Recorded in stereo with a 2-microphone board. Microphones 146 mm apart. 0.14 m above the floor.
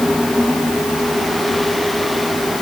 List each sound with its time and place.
Only background noise.